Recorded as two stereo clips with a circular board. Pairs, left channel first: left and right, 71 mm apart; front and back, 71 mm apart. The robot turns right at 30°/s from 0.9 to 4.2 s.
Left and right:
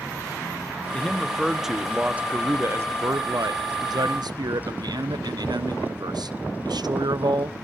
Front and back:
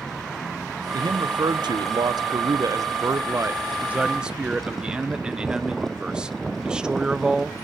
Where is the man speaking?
160° left, 0.6 m; by 7.5 s 100° right, 0.6 m.